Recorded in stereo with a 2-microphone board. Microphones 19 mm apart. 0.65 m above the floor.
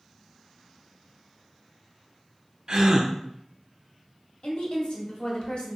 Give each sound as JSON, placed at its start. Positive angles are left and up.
{"t": 2.7, "sound": "a gasp", "side_deg": -40, "distance_m": 0.5}
{"t": 4.4, "sound": "a woman speaking", "side_deg": 55, "distance_m": 1.2}